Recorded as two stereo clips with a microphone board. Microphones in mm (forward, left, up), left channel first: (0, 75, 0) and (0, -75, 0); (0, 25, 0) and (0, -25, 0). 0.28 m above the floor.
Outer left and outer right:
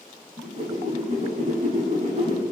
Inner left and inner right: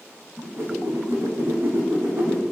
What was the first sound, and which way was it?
A whoosh, 50° right (ahead or behind).